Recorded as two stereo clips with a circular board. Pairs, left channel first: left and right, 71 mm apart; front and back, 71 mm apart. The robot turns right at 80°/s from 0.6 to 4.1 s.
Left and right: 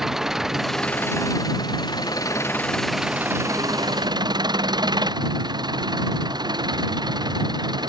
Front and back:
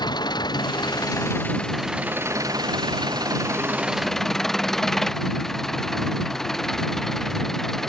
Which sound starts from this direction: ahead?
An engine running, at 0.0 s.